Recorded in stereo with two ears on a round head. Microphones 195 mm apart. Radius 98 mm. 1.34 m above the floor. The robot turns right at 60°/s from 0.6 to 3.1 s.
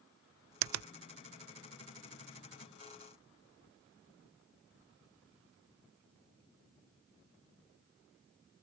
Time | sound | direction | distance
0.6 | a finger snap | 70° right (ahead or behind) | ?